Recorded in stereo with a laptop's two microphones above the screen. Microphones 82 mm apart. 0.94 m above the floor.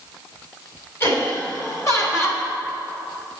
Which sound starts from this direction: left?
Laughter, at 1.0 s.